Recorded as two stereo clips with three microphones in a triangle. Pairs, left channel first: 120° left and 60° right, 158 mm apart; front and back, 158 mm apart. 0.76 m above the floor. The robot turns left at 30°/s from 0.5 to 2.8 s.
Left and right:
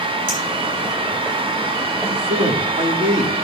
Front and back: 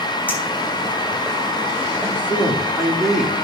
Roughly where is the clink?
Right.